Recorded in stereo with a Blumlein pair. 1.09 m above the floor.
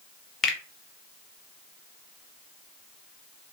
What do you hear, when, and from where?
0.4 s a finger snap: 20° left, 1.0 m